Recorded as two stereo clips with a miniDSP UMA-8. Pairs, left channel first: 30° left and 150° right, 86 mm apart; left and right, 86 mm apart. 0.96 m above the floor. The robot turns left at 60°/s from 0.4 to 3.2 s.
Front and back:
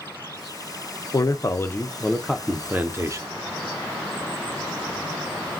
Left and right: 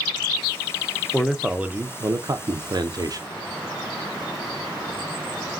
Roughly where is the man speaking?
Ahead.